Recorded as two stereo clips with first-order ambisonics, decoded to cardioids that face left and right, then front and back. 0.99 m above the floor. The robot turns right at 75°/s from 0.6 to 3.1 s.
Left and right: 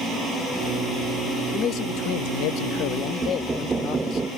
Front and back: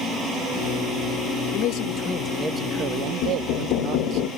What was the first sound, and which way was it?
A man speaking, 25° left.